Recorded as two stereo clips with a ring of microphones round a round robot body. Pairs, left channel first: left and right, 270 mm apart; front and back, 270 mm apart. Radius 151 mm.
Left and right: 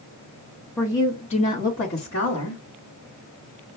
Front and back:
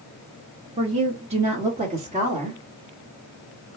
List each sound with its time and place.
0.8 s a woman speaking: 160° left, 1.0 m; by 2.6 s 120° left, 1.5 m